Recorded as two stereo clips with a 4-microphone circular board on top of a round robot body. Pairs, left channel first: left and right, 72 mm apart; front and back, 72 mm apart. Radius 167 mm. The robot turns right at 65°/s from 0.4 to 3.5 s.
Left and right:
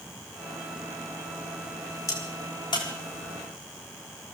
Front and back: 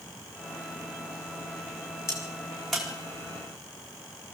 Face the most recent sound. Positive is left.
turn(degrees=140)